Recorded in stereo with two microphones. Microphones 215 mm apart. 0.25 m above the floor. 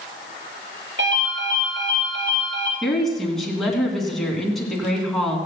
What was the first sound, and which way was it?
A ringtone, 60° right (ahead or behind).